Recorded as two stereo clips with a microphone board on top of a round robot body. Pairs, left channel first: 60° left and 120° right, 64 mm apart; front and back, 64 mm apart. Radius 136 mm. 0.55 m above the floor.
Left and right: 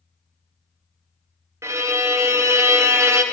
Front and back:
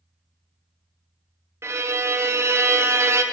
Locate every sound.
1.6 s a violin: 145° right, 0.7 m